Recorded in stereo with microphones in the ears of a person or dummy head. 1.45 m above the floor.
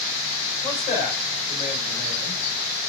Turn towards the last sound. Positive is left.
turn(degrees=35)  # may be behind; listen again after turning